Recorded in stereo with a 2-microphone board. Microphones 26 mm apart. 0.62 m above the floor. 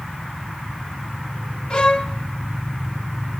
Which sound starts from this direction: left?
A violin, at 1.7 s.